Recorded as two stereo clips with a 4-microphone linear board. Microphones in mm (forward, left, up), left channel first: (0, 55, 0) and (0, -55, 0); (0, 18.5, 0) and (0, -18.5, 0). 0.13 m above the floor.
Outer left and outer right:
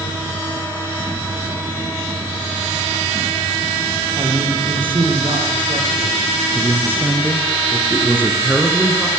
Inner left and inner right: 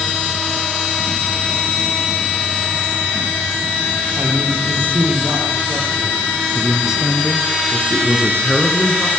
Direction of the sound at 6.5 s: 20° right (ahead or behind).